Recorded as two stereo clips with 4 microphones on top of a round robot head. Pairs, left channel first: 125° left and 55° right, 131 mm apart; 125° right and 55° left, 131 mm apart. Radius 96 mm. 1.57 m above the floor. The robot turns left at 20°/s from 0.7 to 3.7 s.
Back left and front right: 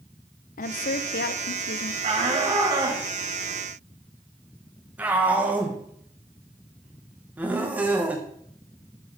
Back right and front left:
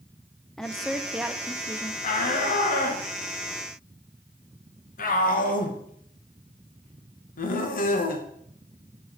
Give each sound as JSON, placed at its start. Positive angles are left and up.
{"t": 0.6, "sound": "a woman speaking", "azimuth_deg": 150, "distance_m": 0.6}
{"t": 2.0, "sound": "a shout", "azimuth_deg": -100, "distance_m": 2.0}